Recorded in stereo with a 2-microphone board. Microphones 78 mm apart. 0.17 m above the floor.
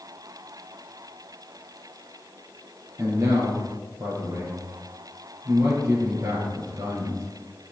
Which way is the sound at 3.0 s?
35° right (ahead or behind).